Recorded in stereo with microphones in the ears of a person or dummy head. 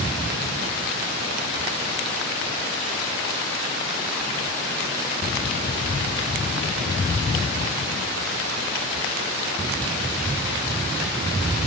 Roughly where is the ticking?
No ticking in this recording.